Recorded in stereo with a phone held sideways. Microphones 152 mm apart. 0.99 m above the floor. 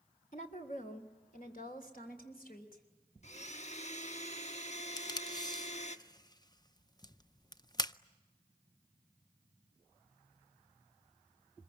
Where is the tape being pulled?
25° left (ahead or behind), 0.6 m.